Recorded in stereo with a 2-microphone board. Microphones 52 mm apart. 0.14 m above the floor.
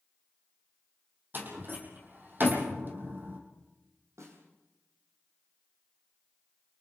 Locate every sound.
1.3 s a door slam: 45° right (ahead or behind), 5 m
4.2 s a snare drum: 75° right (ahead or behind), 6.5 m